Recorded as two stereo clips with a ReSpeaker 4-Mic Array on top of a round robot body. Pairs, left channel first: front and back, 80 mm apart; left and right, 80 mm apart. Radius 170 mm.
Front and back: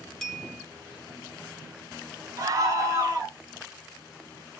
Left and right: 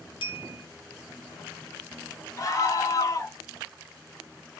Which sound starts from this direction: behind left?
A scream, at 2.4 s.